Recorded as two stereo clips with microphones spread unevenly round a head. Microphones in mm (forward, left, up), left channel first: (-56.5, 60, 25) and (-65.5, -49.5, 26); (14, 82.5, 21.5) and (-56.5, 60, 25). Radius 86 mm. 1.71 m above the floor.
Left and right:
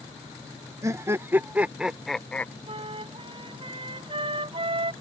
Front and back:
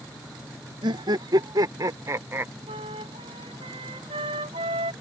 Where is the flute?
135° right.